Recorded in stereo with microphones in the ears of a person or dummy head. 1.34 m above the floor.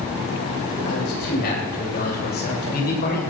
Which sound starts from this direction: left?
A man speaking, at 0.8 s.